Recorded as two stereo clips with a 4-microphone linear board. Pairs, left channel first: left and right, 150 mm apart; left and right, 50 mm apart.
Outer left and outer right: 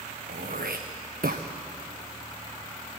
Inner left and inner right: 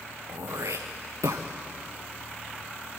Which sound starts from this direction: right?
Throat clearing, at 0.3 s.